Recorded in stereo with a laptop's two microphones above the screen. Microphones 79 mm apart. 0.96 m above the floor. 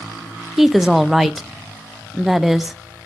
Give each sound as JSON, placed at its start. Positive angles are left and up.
{"t": 0.6, "sound": "a woman speaking", "side_deg": -5, "distance_m": 0.5}